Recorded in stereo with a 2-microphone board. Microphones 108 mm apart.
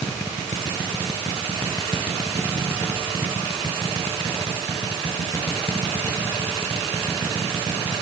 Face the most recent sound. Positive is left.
No sound to turn to.